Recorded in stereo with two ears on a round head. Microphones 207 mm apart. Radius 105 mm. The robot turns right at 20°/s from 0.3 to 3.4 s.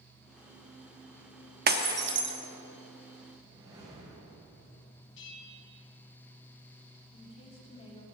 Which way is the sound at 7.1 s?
25° left (ahead or behind).